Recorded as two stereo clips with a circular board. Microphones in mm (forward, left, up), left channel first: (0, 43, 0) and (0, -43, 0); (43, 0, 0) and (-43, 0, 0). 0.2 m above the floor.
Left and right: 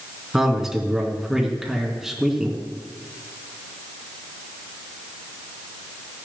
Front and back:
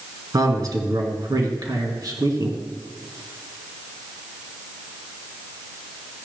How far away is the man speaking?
About 2 m.